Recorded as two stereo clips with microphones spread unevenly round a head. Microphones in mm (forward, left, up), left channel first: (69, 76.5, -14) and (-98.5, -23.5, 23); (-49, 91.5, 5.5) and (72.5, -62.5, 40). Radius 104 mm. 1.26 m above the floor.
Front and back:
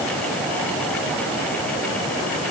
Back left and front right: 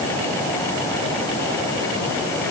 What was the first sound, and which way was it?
Only background noise.